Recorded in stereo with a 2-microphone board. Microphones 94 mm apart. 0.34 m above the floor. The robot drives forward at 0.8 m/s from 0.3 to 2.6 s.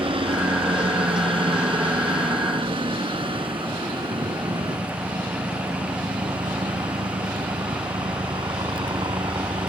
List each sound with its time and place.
0.0 s a helicopter: 70° right (ahead or behind); by 9.7 s 60° right (ahead or behind)